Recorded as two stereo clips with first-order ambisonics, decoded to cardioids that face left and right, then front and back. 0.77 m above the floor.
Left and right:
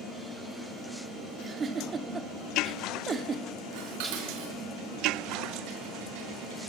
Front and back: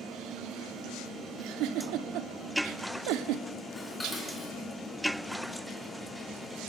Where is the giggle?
155° right, 1.4 m.